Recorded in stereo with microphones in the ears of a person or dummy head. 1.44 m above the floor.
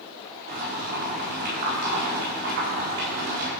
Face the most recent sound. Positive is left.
turn(degrees=-55)  # may be behind; listen again after turning